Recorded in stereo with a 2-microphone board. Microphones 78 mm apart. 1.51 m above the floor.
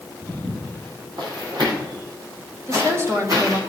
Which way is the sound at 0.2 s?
55° right (ahead or behind).